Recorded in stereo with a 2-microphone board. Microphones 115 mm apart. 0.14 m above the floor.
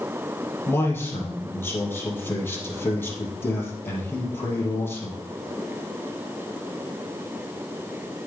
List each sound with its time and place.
0.7 s a man speaking: 20° left (ahead or behind), 4 m